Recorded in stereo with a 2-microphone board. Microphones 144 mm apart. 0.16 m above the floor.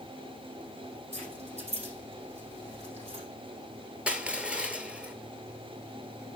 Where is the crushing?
10° right (ahead or behind), 0.8 m.